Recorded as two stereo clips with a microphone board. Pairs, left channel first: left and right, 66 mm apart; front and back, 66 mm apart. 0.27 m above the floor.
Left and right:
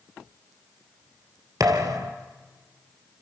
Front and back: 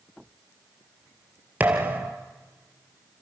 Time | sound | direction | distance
1.6 | a thud | 115° right | 2.5 m